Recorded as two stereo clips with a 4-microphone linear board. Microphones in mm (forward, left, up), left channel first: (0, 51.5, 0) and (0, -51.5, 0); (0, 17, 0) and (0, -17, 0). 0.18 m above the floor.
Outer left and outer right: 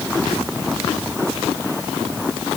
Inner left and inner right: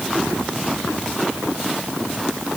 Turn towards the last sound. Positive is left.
No sound to turn to.